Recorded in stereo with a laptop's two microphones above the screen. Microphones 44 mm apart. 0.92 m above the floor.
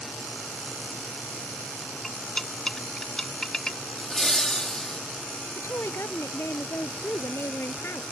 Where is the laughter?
15° left (ahead or behind).